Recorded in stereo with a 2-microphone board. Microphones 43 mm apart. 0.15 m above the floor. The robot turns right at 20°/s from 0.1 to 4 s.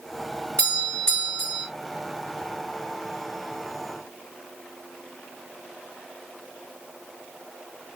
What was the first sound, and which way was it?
A doorbell, 20° left (ahead or behind).